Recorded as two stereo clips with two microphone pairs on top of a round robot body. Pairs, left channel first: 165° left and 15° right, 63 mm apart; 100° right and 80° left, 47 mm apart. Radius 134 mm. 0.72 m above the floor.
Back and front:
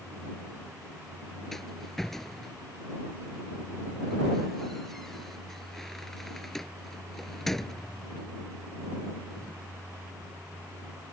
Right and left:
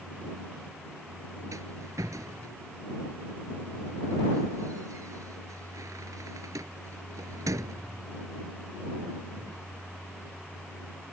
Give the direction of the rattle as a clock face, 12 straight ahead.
9 o'clock.